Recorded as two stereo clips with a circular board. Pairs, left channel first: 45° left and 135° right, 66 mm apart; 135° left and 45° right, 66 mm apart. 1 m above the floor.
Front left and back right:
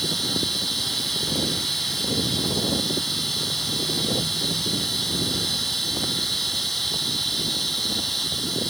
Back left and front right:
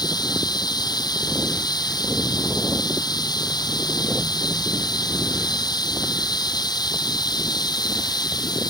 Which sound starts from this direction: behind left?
Running water, at 0.0 s.